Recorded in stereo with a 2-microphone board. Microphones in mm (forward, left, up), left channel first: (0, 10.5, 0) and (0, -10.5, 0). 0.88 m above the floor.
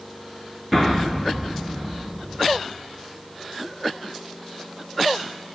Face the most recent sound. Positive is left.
turn(degrees=0)  # may be behind; listen again after turning